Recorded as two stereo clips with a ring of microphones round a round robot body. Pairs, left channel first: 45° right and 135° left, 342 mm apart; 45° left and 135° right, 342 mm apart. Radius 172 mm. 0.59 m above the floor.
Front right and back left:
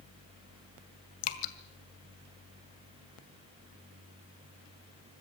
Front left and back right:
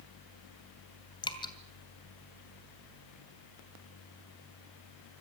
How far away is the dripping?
About 2 m.